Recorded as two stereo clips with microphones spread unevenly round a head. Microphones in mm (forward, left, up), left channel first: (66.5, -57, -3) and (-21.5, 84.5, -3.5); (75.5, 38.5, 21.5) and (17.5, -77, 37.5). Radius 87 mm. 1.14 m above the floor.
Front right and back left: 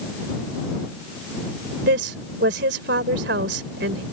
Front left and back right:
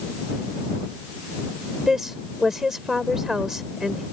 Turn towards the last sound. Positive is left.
turn(degrees=155)